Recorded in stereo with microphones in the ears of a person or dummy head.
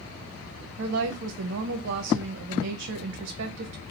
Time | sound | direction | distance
0.8 | a woman speaking | 60° right (ahead or behind) | 0.6 m